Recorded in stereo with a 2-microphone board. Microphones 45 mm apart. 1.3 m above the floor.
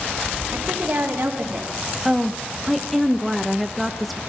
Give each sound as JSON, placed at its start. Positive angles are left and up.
{"t": 0.5, "sound": "a woman speaking", "side_deg": -55, "distance_m": 3.0}
{"t": 2.0, "sound": "a woman speaking", "side_deg": 0, "distance_m": 0.9}